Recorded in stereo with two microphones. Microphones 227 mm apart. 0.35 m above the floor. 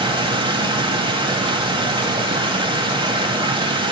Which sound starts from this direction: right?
Running water, at 0.0 s.